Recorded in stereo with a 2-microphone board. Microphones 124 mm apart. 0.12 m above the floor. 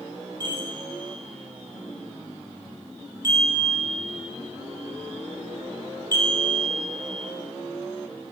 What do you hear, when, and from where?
0.4 s a chime: 30° right (ahead or behind), 2.5 m